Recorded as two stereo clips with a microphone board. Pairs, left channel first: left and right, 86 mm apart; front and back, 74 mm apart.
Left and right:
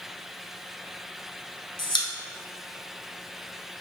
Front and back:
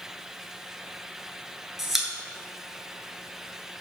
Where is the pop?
95° left, 1.0 m.